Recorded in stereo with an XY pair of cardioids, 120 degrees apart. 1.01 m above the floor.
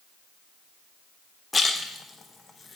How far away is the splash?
About 0.6 m.